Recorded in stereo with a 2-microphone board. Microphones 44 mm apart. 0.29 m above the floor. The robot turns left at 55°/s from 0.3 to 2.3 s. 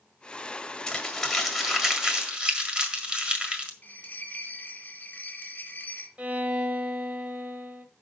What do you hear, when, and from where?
0.9 s crumpling: 15° left (ahead or behind), 1.6 m; by 3.7 s 20° right (ahead or behind), 1.6 m
3.8 s a bell: 35° left (ahead or behind), 1.5 m
6.2 s a violin: 30° right (ahead or behind), 1.1 m